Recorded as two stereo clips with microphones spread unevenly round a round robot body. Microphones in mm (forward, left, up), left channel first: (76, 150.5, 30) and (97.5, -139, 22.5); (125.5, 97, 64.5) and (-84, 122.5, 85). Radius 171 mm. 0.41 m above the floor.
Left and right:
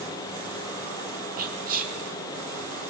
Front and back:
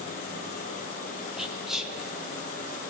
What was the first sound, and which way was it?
Whispering, 90° right.